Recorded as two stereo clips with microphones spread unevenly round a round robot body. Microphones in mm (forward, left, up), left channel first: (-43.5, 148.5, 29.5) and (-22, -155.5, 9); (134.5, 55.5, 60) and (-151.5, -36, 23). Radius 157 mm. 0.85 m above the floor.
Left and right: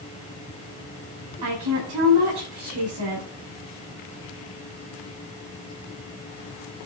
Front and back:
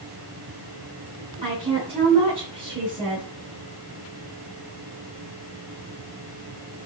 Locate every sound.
1.4 s a woman speaking: 90° right, 8.5 m